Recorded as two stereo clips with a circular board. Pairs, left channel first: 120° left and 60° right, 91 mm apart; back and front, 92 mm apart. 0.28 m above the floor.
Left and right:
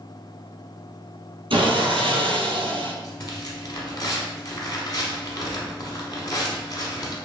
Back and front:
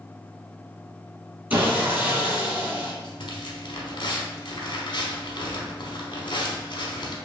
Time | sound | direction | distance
1.5 | sawing | 70° right | 1.1 m
3.0 | tearing paper | 160° left | 0.9 m